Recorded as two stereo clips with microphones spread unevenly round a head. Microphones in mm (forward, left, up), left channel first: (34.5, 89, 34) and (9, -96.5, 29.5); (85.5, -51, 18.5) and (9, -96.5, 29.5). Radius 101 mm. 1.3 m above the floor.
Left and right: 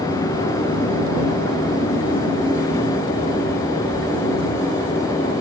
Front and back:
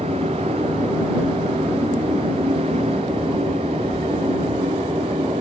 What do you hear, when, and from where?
0.0 s a machine running: 155° left